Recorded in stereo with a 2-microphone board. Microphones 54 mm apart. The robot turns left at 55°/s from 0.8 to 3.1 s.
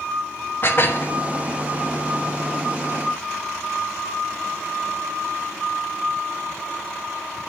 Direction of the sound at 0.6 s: 45° left (ahead or behind).